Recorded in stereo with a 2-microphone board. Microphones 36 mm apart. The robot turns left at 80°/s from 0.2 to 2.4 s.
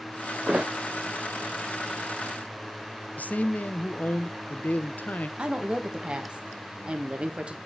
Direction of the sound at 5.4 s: 30° right (ahead or behind).